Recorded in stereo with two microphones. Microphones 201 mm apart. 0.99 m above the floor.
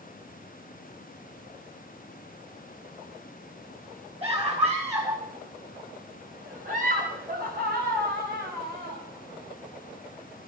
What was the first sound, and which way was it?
A scream, 30° right (ahead or behind).